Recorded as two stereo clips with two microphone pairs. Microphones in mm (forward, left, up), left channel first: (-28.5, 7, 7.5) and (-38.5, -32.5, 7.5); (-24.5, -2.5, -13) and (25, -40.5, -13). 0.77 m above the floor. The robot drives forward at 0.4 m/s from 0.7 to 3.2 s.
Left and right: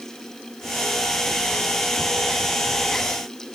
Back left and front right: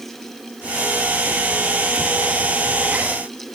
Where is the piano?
No piano in this recording.